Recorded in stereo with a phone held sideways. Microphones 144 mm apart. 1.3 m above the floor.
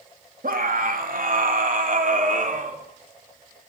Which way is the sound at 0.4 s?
80° right.